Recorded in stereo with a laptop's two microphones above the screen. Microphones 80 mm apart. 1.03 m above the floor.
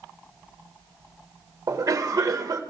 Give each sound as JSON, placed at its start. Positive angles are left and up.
{"t": 1.7, "sound": "a cough", "side_deg": -40, "distance_m": 0.8}